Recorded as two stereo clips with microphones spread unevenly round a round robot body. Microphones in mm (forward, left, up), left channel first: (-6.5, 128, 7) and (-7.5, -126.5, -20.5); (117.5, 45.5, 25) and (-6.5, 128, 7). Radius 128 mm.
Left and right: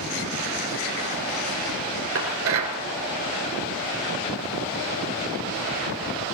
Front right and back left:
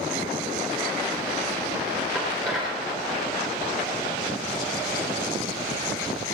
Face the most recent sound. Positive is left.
turn(degrees=-125)